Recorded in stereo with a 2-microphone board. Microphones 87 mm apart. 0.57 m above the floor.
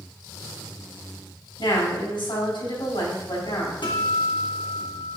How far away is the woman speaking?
About 4 m.